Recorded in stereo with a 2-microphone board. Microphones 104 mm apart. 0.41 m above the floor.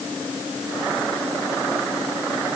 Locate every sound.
Only background noise.